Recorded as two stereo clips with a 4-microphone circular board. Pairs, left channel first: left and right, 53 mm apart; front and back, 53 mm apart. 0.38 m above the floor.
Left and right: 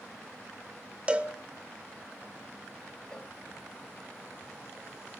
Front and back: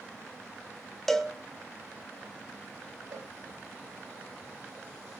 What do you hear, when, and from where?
1.1 s a cowbell: 80° right, 1.0 m
3.1 s a cowbell: 165° left, 0.8 m